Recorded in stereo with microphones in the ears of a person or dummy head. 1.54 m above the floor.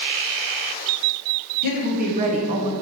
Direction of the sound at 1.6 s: 50° right (ahead or behind).